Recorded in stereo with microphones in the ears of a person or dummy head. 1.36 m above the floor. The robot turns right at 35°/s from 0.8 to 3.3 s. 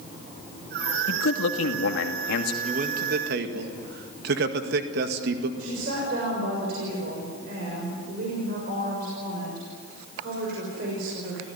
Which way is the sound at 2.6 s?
40° right (ahead or behind).